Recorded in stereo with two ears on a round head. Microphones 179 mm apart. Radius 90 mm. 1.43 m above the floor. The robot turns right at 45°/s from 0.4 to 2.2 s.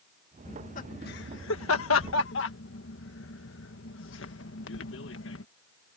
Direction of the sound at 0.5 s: 30° left (ahead or behind).